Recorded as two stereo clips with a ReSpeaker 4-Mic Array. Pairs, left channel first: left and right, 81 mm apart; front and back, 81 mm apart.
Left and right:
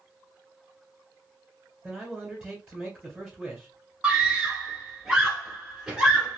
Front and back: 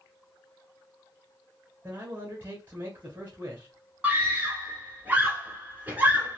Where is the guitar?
I don't hear a guitar.